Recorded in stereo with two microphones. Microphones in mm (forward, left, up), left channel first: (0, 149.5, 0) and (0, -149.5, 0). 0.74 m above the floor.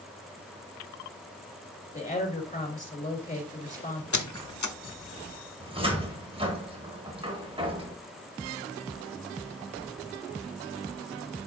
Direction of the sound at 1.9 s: 25° left (ahead or behind).